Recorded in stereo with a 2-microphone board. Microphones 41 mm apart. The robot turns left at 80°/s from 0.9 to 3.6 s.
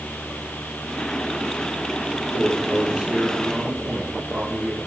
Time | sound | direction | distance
2.1 | a man speaking | 75° left | 4 m